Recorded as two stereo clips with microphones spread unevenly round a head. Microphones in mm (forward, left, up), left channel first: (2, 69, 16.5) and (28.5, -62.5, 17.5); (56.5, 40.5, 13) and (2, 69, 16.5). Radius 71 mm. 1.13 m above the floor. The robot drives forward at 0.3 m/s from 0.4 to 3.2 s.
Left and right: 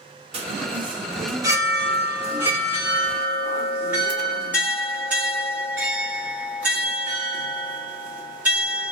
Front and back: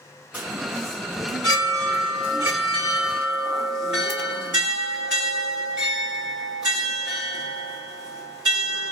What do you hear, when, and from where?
0.3 s a chime: 130° right, 0.7 m; by 8.9 s 160° right, 1.3 m